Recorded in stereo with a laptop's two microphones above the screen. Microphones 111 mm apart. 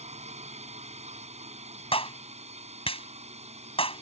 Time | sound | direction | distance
0.0 | a drone | 80° right | ?
1.9 | a clap | 60° left (ahead or behind) | ?